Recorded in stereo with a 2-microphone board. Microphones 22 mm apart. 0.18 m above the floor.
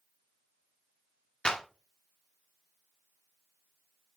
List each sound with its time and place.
1.4 s a clap: 50° left (ahead or behind), 1.7 m